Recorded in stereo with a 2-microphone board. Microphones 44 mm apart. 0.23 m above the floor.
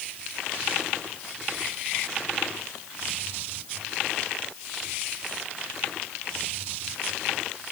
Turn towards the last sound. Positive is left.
No sound to turn to.